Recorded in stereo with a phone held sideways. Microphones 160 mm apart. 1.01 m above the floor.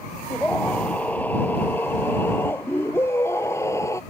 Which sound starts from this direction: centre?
A scream, at 0.3 s.